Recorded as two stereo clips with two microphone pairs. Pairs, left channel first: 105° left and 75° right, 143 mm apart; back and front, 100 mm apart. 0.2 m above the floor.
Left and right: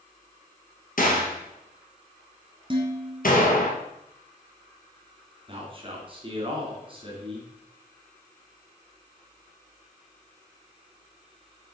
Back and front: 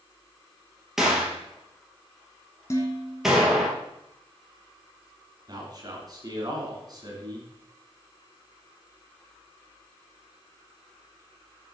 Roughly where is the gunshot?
Left.